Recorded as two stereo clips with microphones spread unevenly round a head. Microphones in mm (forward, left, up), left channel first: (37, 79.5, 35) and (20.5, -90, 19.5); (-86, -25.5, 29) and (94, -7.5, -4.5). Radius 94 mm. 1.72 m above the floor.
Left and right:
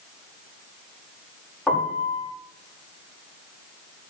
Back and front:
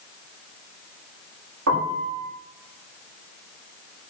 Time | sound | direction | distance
1.7 | a piano | straight ahead | 4.5 m